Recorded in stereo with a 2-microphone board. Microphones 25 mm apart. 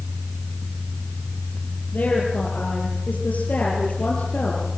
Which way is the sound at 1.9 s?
75° left (ahead or behind).